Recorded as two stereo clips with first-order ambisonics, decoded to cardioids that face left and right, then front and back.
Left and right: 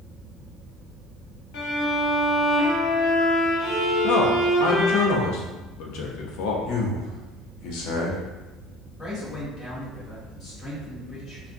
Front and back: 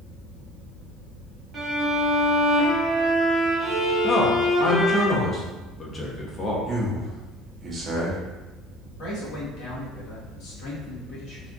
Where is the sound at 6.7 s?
115° left, 0.8 m.